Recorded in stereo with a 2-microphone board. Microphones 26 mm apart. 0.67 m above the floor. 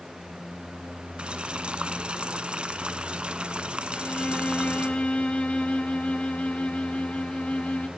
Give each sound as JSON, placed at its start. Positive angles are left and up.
{"t": 1.2, "sound": "boiling", "side_deg": -45, "distance_m": 1.7}
{"t": 3.9, "sound": "a violin", "side_deg": 50, "distance_m": 1.9}